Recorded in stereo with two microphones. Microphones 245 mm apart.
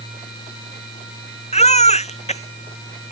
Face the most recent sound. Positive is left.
turn(degrees=25)  # may be behind; listen again after turning